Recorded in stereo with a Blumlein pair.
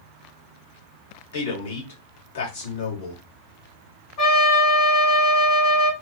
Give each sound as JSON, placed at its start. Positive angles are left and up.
{"t": 1.3, "sound": "a man speaking", "azimuth_deg": 60, "distance_m": 1.7}
{"t": 4.2, "sound": "a trumpet", "azimuth_deg": 35, "distance_m": 1.4}